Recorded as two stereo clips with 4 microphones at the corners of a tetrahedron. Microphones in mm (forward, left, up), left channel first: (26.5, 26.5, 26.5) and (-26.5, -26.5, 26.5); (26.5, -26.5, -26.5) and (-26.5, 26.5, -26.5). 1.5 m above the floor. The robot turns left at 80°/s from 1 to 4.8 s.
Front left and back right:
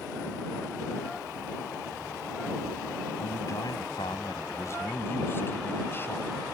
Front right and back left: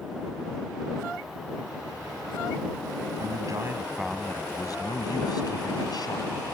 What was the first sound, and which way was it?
A man speaking, 115° left.